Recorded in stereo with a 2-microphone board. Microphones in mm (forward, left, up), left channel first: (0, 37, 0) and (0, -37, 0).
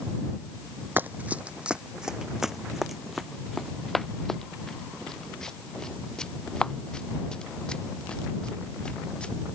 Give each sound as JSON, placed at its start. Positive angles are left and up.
{"t": 1.0, "sound": "running footsteps", "side_deg": -25}